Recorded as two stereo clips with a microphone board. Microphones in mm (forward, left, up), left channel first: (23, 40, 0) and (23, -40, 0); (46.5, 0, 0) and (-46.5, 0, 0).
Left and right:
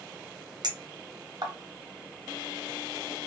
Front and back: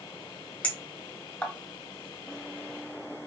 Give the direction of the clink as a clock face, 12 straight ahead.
2 o'clock.